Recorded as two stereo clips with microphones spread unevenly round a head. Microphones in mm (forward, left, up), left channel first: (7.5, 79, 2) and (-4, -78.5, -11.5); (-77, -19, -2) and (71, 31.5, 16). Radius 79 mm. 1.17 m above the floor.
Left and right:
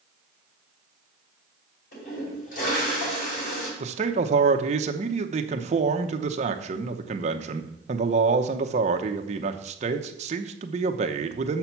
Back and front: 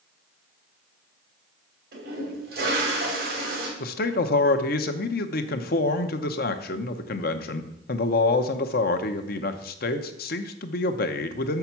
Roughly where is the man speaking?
Behind right.